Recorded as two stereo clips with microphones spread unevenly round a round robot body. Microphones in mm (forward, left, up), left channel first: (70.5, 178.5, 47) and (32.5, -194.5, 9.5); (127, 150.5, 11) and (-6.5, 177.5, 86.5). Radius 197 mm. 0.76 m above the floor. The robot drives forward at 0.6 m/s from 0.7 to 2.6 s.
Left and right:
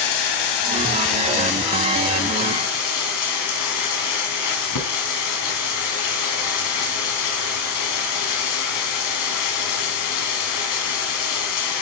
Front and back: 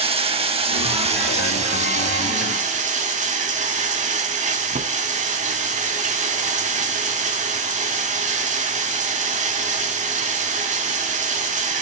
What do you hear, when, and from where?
0.0 s running water: 120° left, 3 m; by 11.8 s 135° left, 3.5 m